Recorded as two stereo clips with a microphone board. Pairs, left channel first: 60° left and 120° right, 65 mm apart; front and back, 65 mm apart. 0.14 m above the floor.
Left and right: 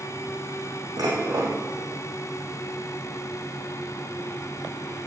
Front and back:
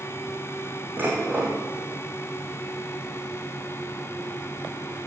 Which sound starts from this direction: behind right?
Dishes clattering, at 1.0 s.